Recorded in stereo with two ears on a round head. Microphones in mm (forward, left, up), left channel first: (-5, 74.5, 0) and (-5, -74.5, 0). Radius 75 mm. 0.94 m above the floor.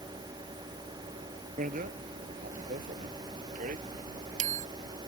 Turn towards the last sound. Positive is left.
turn(degrees=-45)  # may be behind; listen again after turning